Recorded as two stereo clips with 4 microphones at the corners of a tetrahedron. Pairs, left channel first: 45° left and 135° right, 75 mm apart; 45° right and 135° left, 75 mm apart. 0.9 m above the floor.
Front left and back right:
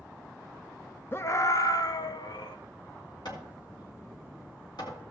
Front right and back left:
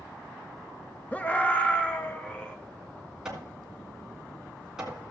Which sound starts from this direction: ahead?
A scream, at 1.1 s.